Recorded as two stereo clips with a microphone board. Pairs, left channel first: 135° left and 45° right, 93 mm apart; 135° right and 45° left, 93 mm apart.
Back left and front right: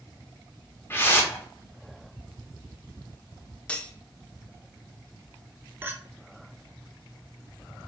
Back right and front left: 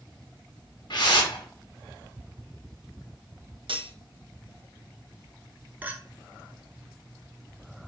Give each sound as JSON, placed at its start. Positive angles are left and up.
{"t": 0.9, "sound": "a whoosh", "azimuth_deg": -165, "distance_m": 1.0}
{"t": 3.7, "sound": "cutlery clinking", "azimuth_deg": 60, "distance_m": 0.6}
{"t": 5.8, "sound": "a clink", "azimuth_deg": 0, "distance_m": 0.6}